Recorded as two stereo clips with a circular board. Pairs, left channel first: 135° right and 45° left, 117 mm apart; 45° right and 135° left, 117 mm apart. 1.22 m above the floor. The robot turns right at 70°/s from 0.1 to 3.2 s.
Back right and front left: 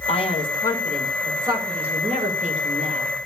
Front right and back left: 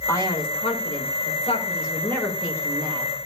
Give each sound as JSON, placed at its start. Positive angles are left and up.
{"t": 0.1, "sound": "a man speaking", "azimuth_deg": -110, "distance_m": 6.0}